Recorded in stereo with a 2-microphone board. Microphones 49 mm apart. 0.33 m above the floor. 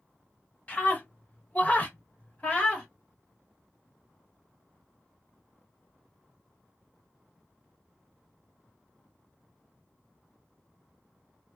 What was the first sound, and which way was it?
A scream, 25° left (ahead or behind).